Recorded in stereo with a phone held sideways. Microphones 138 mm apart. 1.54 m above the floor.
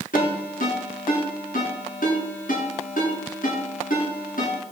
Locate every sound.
0.1 s a ringtone: 80° left, 8.5 m